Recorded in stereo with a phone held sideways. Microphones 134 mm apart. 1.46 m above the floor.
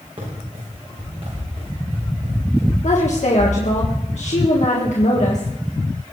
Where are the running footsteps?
50° right (ahead or behind), 7.5 m; by 3.8 s 40° right (ahead or behind), 10 m.